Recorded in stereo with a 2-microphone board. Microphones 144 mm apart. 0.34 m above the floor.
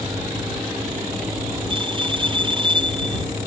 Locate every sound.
1.7 s a bell: 30° right (ahead or behind)